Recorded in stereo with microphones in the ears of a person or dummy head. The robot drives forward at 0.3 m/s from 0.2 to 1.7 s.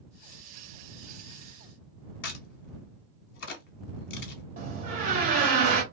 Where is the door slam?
45° right (ahead or behind), 1.1 m.